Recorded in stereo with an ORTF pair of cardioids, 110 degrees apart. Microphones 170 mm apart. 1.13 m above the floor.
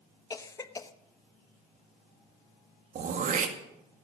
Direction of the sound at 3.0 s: 50° right.